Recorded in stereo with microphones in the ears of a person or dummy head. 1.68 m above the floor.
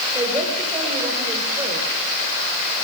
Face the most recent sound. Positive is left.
turn(degrees=-15)  # may be behind; listen again after turning